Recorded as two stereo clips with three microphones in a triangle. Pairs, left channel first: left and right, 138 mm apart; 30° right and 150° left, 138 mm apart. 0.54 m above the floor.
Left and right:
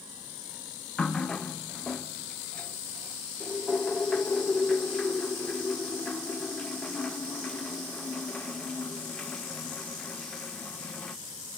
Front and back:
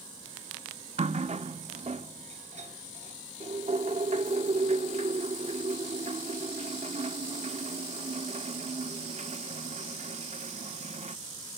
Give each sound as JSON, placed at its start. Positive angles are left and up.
{"t": 1.0, "sound": "a running tap", "azimuth_deg": 170, "distance_m": 0.6}